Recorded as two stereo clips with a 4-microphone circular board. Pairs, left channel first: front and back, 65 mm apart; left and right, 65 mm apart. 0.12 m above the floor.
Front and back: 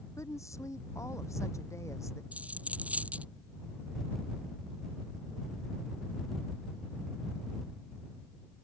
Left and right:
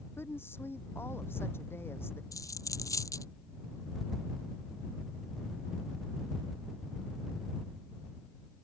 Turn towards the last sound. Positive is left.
turn(degrees=115)